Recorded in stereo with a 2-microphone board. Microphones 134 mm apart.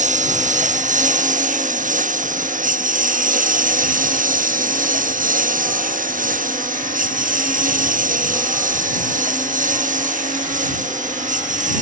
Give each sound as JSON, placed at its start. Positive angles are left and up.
{"t": 0.0, "sound": "a lawn mower", "side_deg": -65}